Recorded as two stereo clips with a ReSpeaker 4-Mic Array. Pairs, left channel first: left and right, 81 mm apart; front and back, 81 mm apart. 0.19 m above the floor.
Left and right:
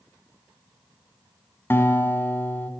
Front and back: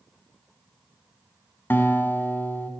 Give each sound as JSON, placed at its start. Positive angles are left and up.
{"t": 1.7, "sound": "a guitar", "azimuth_deg": 45, "distance_m": 1.3}